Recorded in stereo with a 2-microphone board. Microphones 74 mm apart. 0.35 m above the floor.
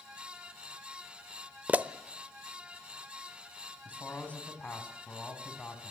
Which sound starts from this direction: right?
A pop, at 1.7 s.